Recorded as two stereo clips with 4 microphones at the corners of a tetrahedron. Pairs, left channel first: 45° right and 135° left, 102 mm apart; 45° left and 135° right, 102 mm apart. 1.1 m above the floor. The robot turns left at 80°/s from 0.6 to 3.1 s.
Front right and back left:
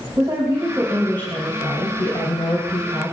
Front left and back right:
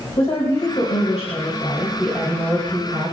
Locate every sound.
0.2 s a woman speaking: 75° left, 4.5 m; by 3.1 s 125° right, 4.5 m